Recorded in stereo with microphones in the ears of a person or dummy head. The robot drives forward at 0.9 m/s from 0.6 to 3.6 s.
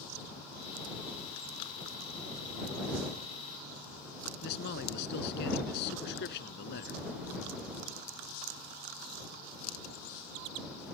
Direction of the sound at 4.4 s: 55° left (ahead or behind).